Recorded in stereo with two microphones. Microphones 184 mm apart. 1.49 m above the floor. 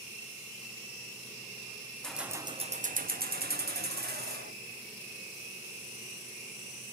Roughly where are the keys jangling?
Centre.